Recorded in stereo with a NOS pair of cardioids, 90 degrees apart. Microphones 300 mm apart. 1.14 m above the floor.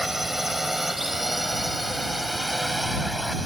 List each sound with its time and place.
0.0 s a drone: straight ahead